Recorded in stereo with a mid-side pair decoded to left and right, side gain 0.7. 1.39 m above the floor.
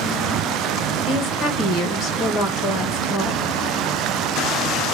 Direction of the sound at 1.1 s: 45° left.